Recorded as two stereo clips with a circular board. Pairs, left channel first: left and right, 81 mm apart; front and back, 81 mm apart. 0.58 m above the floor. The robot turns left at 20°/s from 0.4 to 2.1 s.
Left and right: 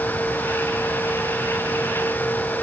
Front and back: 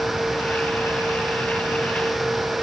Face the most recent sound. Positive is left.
No sound to turn to.